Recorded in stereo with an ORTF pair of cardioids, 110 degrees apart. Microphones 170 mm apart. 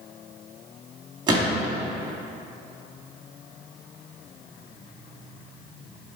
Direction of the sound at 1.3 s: 25° right.